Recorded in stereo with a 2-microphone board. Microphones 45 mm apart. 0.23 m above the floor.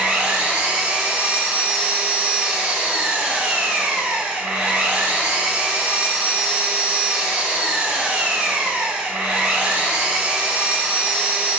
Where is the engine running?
25° right (ahead or behind), 0.7 m.